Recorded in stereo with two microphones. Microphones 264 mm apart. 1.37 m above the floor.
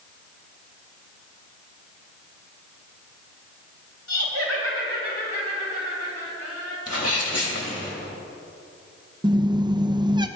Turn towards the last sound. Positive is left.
turn(degrees=-15)  # may be behind; listen again after turning